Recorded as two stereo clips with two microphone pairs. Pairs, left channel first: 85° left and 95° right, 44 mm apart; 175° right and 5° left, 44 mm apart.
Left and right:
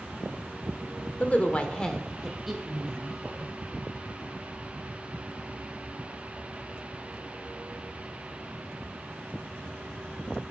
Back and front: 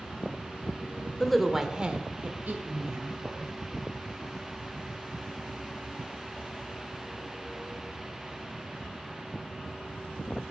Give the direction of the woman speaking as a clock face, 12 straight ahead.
9 o'clock.